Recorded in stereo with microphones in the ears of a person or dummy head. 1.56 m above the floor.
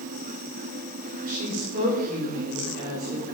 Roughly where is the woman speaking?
Right.